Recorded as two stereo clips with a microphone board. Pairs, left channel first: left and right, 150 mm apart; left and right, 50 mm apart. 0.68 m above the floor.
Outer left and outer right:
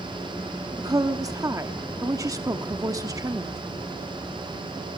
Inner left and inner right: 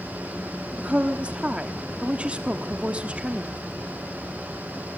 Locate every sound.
0.8 s a woman speaking: 25° right (ahead or behind), 1.0 m